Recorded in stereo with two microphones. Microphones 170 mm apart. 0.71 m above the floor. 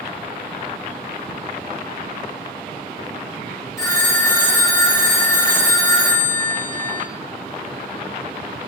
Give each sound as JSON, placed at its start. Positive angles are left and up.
{"t": 3.8, "sound": "a phone ringing", "side_deg": 15, "distance_m": 0.8}